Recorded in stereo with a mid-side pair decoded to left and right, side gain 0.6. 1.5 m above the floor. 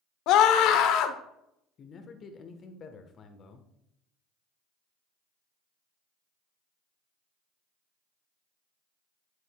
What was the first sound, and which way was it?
A scream, 70° left.